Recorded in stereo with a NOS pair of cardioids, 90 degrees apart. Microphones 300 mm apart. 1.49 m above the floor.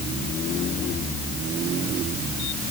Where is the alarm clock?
No alarm clock in this recording.